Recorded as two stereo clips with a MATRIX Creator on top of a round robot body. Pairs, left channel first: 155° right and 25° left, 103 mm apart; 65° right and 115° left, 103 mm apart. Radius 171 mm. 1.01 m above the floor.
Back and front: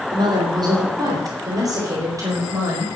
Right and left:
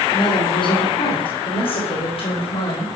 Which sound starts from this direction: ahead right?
A woman speaking, at 0.1 s.